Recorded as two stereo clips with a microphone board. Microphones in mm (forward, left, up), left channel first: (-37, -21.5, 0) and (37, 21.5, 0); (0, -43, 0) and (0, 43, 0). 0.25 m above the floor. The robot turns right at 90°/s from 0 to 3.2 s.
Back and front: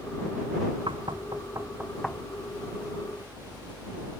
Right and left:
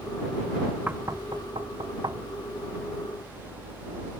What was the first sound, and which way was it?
Knocking, 20° left.